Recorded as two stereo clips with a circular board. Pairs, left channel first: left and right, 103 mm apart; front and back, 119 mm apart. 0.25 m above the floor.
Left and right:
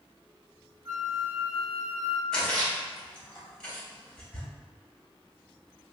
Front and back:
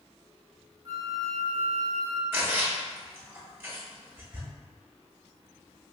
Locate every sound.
0.8 s a flute: 130° right, 0.8 m
2.3 s a splash: 160° left, 1.6 m